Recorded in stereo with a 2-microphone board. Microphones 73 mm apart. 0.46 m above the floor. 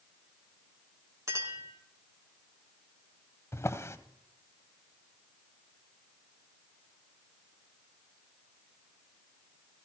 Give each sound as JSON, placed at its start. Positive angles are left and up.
{"t": 1.3, "sound": "a clink", "side_deg": -40, "distance_m": 4.0}
{"t": 3.5, "sound": "a drawer", "side_deg": 35, "distance_m": 1.1}